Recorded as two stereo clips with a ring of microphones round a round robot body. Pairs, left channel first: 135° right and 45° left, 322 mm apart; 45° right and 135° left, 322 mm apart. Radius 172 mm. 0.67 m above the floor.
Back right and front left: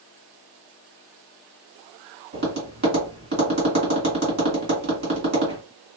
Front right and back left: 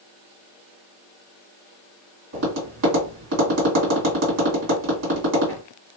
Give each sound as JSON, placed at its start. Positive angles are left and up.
{"t": 2.3, "sound": "tapping", "azimuth_deg": 100, "distance_m": 2.0}